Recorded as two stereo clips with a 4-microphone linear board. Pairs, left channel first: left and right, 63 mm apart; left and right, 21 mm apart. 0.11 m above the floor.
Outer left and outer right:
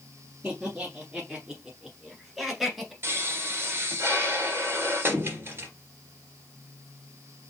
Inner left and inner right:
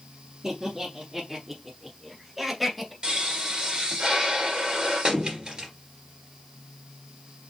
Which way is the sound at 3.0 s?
40° right (ahead or behind).